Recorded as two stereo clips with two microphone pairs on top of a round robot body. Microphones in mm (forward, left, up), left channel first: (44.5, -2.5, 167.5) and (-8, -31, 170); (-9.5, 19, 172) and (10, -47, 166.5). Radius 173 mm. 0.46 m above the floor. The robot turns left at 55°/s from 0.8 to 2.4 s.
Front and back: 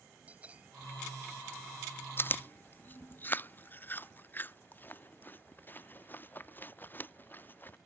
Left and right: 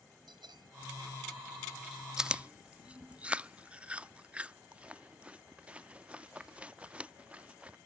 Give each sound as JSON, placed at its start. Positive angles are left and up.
{"t": 0.3, "sound": "a bell", "azimuth_deg": -85}
{"t": 2.2, "sound": "chewing", "azimuth_deg": 0}